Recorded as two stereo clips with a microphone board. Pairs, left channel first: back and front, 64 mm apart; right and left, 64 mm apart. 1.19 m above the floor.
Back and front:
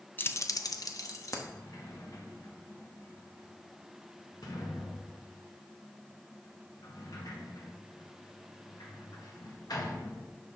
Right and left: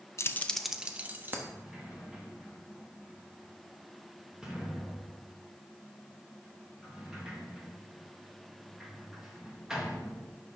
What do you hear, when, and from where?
0.2 s keys jangling: 125° right, 0.5 m; by 1.4 s 145° left, 1.1 m
1.5 s a sliding door: 170° left, 1.6 m